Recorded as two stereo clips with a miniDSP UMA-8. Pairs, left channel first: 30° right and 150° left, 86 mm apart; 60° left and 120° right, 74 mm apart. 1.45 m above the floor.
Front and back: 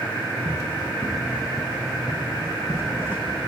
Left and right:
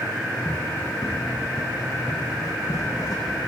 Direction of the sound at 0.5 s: 115° left.